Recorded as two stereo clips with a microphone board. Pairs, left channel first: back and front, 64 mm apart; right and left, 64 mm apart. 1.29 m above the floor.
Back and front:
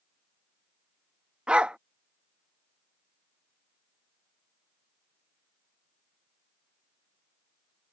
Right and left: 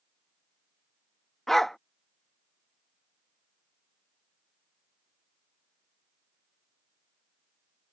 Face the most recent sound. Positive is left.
turn(degrees=-15)